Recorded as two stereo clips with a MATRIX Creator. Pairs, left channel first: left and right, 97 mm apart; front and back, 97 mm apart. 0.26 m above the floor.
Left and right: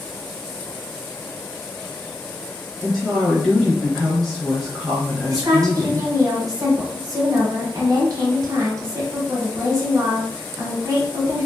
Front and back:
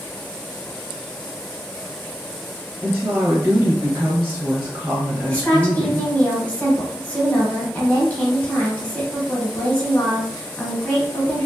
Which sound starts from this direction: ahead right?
A woman speaking, at 5.3 s.